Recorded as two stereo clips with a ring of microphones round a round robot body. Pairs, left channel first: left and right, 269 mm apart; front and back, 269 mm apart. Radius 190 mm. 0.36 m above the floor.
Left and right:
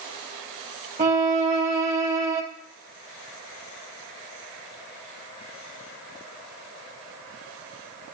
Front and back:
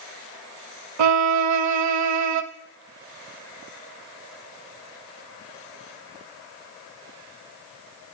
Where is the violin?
160° right, 0.6 m.